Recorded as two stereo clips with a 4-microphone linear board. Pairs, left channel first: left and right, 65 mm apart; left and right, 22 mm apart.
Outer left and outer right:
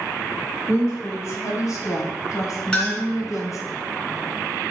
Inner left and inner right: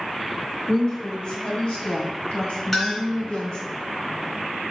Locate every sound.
0.7 s a woman speaking: 50° left (ahead or behind), 2.5 m
2.7 s a clink: 15° left (ahead or behind), 2.5 m